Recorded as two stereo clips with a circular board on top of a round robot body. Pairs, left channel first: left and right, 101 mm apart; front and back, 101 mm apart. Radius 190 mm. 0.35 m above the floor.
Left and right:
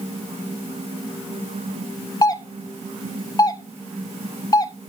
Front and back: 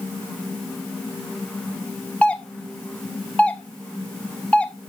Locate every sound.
2.2 s a doorbell: 75° left, 1.9 m